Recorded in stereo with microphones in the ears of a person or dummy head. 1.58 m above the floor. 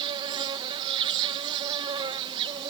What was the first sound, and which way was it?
An insect, 30° right (ahead or behind).